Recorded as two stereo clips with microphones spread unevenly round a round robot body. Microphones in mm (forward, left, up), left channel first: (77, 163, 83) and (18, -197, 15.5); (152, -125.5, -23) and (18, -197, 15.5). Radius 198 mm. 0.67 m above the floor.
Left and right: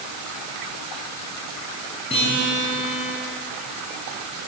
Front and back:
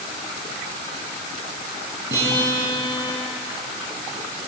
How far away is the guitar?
About 9.5 m.